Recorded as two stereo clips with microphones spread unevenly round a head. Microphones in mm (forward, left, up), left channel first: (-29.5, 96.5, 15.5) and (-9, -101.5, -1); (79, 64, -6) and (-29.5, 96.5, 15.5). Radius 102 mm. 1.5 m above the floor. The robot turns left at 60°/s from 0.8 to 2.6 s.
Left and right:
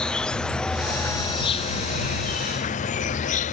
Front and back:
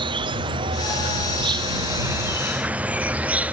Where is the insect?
175° right; by 3.5 s 80° left.